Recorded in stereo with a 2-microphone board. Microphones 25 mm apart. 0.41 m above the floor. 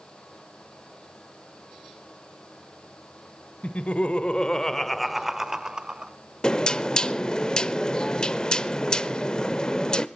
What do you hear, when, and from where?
3.6 s laughter: 60° left (ahead or behind), 1.4 m; by 6.1 s 35° right (ahead or behind), 1.5 m
6.4 s knocking: 30° left (ahead or behind), 0.7 m